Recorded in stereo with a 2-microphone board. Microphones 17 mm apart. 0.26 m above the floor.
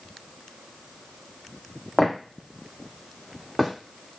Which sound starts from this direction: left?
Footsteps, at 2.0 s.